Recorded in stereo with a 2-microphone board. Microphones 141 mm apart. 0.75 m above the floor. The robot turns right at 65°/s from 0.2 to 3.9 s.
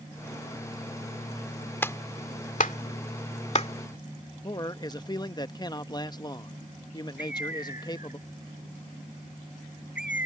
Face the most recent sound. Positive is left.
turn(degrees=65)  # may be behind; listen again after turning